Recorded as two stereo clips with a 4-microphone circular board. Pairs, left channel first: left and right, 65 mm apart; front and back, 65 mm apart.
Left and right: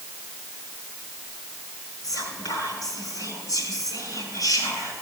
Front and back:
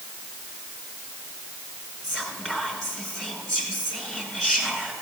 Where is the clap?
I don't hear a clap.